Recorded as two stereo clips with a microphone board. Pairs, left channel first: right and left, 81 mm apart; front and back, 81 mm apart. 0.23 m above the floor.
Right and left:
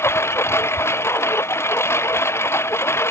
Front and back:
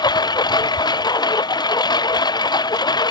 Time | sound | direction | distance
0.0 | a lawn mower | 30° right | ?